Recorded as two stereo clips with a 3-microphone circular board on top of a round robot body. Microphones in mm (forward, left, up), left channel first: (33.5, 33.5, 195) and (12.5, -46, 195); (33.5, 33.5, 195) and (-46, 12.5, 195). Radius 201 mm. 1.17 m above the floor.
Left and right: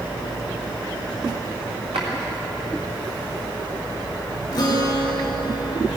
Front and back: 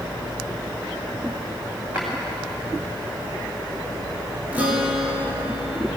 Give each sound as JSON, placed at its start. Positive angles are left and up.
{"t": 1.9, "sound": "a drawer", "azimuth_deg": -90, "distance_m": 2.0}
{"t": 4.5, "sound": "a guitar", "azimuth_deg": 125, "distance_m": 1.3}